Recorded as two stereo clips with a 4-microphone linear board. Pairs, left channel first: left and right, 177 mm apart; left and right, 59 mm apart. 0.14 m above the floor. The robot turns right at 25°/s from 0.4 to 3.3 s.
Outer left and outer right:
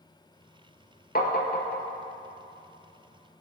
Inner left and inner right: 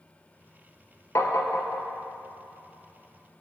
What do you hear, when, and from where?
1.1 s tapping: 55° left (ahead or behind), 0.9 m; by 1.8 s 65° left (ahead or behind), 0.9 m